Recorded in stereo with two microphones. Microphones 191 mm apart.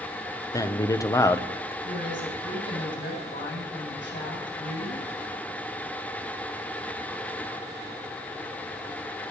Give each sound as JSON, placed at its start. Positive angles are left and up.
{"t": 0.5, "sound": "a man speaking", "side_deg": 15, "distance_m": 1.0}
{"t": 1.8, "sound": "a woman speaking", "side_deg": 75, "distance_m": 8.0}